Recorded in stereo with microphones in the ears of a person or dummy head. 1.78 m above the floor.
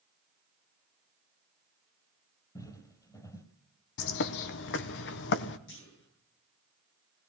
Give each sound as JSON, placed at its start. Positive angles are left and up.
{"t": 2.5, "sound": "footsteps", "side_deg": 20, "distance_m": 3.0}
{"t": 4.0, "sound": "a bird", "side_deg": 70, "distance_m": 1.1}
{"t": 5.7, "sound": "a clunk", "side_deg": 70, "distance_m": 9.5}